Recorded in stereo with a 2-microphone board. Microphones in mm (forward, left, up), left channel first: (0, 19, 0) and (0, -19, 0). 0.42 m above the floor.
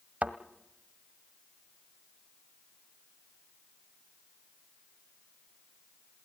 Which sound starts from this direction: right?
A thud, at 0.2 s.